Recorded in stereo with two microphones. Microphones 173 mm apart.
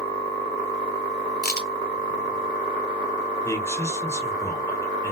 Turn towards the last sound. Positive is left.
turn(degrees=15)  # may be behind; listen again after turning